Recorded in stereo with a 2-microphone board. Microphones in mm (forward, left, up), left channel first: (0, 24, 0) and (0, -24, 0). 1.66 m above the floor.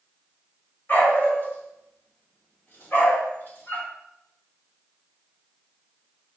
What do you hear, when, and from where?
0.9 s a dog barking: 45° left (ahead or behind), 1.8 m; by 3.9 s 50° left (ahead or behind), 2.5 m